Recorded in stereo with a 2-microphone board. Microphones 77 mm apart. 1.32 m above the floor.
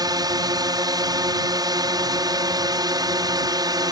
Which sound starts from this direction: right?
A drone, at 0.0 s.